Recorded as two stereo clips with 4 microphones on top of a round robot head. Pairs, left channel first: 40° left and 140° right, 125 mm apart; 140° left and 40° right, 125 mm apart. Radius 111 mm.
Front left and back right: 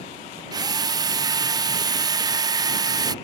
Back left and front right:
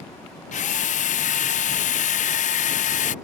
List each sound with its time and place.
0.5 s a drill: 160° left